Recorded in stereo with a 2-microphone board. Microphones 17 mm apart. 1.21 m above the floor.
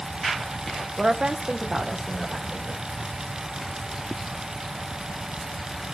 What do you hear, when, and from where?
1.0 s a woman speaking: 60° right (ahead or behind), 1.0 m; by 2.8 s 5° right (ahead or behind), 2.5 m